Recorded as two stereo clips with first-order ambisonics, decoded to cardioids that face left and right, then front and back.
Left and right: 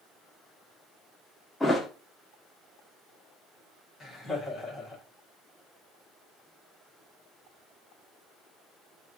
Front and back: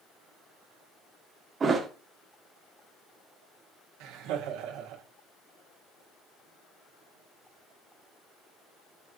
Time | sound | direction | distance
1.6 | a thud | 160° left | 1.2 m
4.0 | laughter | straight behind | 2 m